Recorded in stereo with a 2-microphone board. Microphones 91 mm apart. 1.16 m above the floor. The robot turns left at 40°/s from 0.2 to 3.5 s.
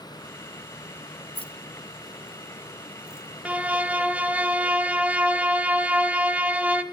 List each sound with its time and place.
1.4 s keys jangling: 70° left (ahead or behind), 0.8 m; by 3.3 s 25° left (ahead or behind), 0.8 m
3.5 s a violin: 15° right (ahead or behind), 1.0 m